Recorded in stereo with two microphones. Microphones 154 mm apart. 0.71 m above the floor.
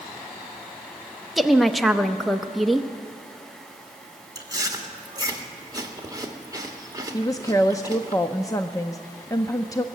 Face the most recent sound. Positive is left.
turn(degrees=20)  # may be behind; listen again after turning